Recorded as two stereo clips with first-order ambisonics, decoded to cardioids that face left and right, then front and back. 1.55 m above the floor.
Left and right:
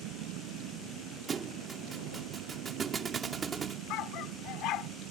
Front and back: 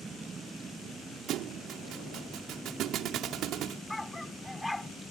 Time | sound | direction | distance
0.0 | a vehicle | 100° right | ?
1.3 | a thud | 155° right | ?
3.9 | a dog barking | 85° left | ?